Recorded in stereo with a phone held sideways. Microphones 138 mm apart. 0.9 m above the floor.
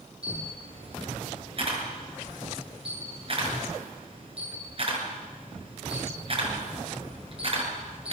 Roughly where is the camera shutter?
Right.